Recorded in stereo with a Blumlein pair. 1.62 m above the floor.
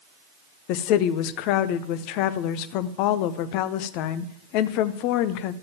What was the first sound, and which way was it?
A woman speaking, 45° left.